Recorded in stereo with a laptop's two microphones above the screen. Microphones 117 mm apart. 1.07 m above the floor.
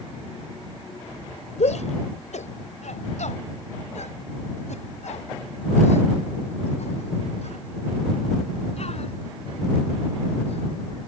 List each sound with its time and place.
1.6 s a shout: 75° left (ahead or behind); by 10.7 s 60° left (ahead or behind)